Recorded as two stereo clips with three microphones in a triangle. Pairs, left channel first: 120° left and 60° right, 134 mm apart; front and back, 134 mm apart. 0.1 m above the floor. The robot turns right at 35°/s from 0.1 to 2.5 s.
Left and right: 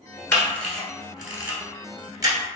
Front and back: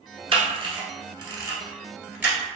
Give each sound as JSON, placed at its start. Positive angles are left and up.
{"t": 0.3, "sound": "a camera shutter", "azimuth_deg": -170, "distance_m": 1.2}